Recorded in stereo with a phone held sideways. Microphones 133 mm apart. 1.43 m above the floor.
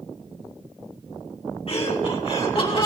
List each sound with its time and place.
1.7 s laughter: 50° left (ahead or behind), 4.5 m; by 2.9 s 45° left (ahead or behind), 5.5 m